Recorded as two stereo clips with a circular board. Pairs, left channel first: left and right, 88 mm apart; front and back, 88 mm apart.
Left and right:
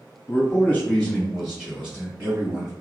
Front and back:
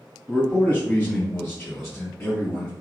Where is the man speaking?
70° left, 1.4 m; by 2.7 s 35° right, 1.8 m.